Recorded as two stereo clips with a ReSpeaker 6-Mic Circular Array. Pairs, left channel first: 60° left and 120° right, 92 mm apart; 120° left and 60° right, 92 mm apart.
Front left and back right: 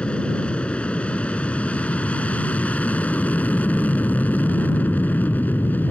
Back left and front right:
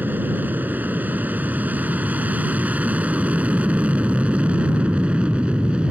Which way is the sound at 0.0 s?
10° right.